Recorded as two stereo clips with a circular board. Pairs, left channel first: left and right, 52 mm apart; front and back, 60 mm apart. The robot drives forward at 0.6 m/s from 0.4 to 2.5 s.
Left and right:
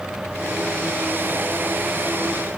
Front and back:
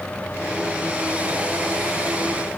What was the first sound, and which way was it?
Only background noise.